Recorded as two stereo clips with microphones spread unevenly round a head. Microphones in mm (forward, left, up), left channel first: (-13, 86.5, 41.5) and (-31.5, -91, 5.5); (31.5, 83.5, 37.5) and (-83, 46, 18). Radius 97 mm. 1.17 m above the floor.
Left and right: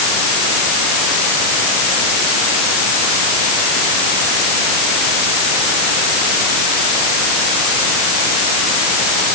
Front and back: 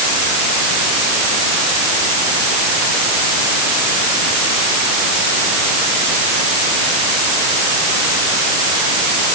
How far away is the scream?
No scream in this recording.